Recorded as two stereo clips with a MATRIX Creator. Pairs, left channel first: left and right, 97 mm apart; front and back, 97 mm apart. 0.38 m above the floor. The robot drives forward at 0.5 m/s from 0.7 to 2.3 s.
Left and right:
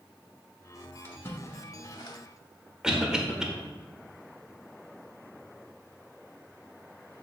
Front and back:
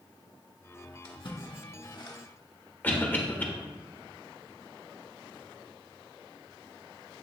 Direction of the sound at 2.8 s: 20° right.